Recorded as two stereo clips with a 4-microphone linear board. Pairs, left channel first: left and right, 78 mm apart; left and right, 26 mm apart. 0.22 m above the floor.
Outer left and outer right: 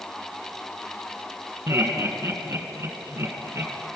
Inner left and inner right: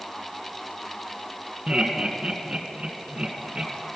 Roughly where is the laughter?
Right.